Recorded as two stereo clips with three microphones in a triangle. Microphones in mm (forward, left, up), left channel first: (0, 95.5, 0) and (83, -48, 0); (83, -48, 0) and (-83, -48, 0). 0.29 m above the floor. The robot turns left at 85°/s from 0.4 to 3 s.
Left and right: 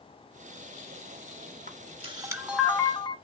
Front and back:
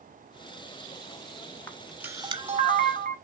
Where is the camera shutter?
70° right, 0.9 m; by 3.1 s 175° left, 0.9 m.